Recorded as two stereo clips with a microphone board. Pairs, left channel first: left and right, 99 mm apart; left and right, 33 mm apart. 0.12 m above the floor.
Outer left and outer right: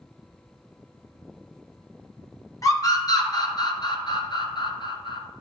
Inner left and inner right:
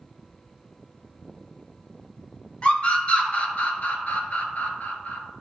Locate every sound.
2.6 s a scream: 35° left (ahead or behind), 1.7 m; by 5.2 s 55° left (ahead or behind), 1.9 m